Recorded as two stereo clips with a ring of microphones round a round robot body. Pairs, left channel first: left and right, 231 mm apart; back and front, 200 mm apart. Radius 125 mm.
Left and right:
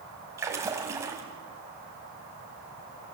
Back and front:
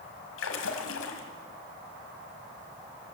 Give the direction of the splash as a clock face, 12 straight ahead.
6 o'clock.